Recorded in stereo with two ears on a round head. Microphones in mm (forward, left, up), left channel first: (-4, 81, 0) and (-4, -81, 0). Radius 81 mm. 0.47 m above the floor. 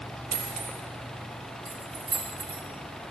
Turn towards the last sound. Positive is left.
turn(degrees=-60)  # may be behind; listen again after turning